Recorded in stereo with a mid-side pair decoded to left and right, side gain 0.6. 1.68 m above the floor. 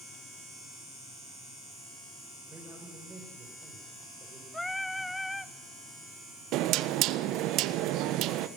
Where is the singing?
5° left, 0.9 m.